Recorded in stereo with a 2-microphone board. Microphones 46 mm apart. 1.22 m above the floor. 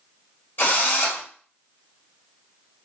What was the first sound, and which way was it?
A drill, 45° left (ahead or behind).